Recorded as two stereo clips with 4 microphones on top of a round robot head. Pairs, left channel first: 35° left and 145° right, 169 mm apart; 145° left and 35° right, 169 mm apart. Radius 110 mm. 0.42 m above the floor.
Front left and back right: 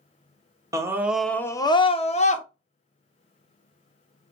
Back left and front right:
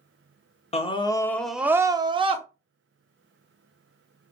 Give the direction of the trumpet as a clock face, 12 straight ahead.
No trumpet in this recording.